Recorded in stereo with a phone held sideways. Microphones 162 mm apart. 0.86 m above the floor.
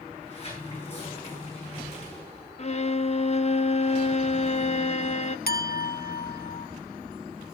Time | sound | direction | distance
0.1 | a sliding door | 40° left (ahead or behind) | 9.5 m
2.6 | a violin | 40° left (ahead or behind) | 0.8 m
5.5 | a clink | 70° left (ahead or behind) | 1.1 m